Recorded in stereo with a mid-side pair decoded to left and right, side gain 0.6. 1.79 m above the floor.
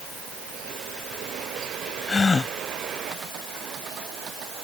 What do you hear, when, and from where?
2.1 s a gasp: 25° left